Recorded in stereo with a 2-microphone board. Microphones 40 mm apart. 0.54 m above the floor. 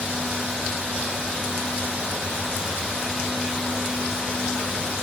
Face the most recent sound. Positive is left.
No sound to turn to.